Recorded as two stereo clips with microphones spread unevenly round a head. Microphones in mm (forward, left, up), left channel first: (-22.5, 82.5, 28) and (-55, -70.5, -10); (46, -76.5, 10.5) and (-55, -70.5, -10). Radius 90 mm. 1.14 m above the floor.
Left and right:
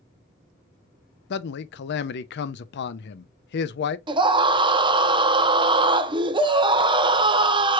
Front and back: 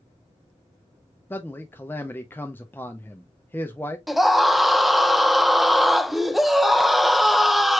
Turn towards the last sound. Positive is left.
turn(degrees=-110)